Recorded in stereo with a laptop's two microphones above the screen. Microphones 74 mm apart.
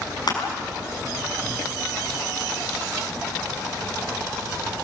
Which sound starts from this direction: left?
Crushing, at 0.3 s.